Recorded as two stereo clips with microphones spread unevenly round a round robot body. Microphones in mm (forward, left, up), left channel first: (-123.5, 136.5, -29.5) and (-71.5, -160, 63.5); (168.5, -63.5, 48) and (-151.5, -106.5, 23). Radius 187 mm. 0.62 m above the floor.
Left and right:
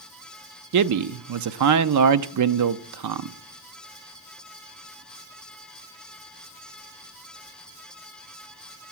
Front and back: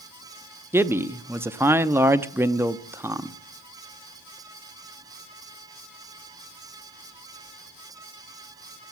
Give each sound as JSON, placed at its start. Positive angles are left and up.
{"t": 0.7, "sound": "a man speaking", "azimuth_deg": -100, "distance_m": 0.7}